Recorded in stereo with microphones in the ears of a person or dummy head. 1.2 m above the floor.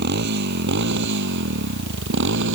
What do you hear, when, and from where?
0.0 s a motorcycle: 55° right (ahead or behind); by 2.5 s 60° right (ahead or behind)